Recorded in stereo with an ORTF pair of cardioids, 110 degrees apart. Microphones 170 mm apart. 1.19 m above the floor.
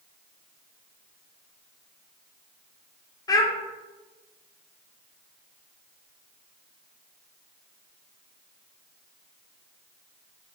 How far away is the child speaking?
About 0.8 m.